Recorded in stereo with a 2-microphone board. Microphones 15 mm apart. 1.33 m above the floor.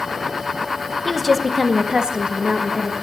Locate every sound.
1.1 s a woman speaking: centre (ahead or behind), 1.2 m; by 2.9 s 65° right (ahead or behind), 1.7 m